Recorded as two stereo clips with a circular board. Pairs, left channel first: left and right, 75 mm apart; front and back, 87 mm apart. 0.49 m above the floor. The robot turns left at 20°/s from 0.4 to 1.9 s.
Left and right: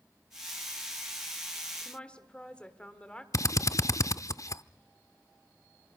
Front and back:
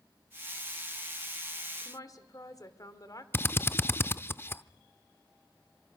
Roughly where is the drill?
Ahead left.